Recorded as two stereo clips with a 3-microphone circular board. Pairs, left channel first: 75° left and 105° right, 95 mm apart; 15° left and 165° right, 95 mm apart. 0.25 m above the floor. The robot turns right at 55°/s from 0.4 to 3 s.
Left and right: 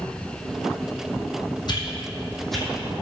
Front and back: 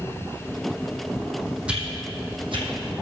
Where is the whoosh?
115° left, 2 m; by 2.7 s 170° left, 2 m.